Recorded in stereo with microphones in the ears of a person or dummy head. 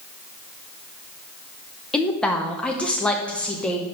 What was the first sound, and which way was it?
A woman speaking, centre (ahead or behind).